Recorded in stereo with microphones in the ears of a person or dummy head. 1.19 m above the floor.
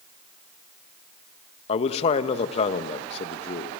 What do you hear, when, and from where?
1.7 s a man speaking: 40° left (ahead or behind), 1.4 m